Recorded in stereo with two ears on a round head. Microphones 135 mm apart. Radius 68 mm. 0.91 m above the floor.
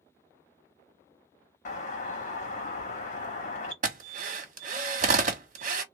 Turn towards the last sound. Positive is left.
turn(degrees=-50)  # may be behind; listen again after turning